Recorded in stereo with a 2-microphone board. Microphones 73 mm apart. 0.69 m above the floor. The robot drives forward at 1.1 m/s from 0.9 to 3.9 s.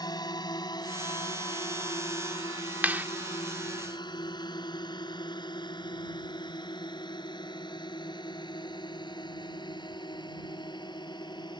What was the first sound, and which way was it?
A drone, 65° left (ahead or behind).